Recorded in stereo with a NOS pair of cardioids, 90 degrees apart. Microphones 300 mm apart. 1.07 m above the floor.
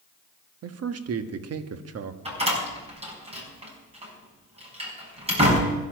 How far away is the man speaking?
About 1.4 m.